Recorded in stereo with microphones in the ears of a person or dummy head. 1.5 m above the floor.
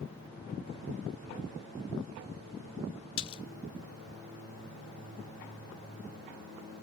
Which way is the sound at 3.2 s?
30° left (ahead or behind).